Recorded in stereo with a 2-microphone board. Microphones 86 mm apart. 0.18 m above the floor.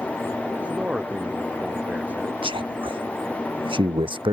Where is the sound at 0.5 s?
15° right (ahead or behind).